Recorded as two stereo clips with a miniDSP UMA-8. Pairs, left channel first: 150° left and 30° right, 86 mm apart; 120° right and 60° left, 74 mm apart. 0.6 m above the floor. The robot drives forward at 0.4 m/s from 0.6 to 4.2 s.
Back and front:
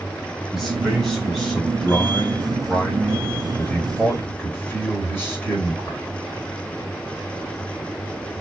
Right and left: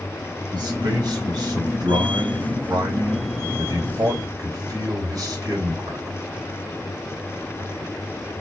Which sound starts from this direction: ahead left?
A man speaking, at 0.5 s.